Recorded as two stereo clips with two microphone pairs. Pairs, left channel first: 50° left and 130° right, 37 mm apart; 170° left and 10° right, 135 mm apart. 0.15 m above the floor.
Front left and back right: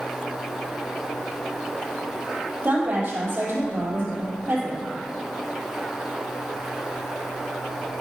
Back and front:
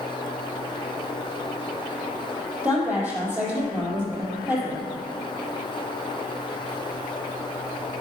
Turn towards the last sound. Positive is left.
turn(degrees=-90)